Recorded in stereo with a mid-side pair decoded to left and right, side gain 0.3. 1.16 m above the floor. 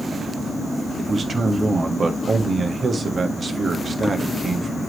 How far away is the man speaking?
About 1.7 m.